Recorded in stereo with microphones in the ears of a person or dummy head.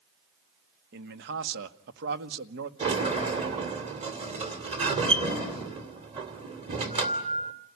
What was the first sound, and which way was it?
A man speaking, 65° right (ahead or behind).